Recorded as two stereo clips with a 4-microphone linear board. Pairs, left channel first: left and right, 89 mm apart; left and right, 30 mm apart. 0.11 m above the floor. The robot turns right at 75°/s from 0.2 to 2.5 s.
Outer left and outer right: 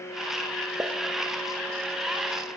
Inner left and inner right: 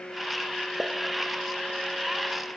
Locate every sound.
0.8 s a pop: 30° right (ahead or behind), 1.1 m